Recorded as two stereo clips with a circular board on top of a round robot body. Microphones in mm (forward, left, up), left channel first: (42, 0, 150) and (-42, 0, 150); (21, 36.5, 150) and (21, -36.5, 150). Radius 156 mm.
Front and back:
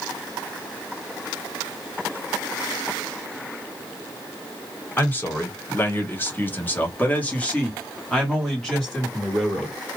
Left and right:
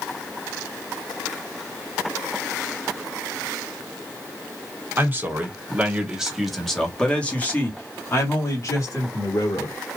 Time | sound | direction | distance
5.0 | a man speaking | 50° right | 1.6 m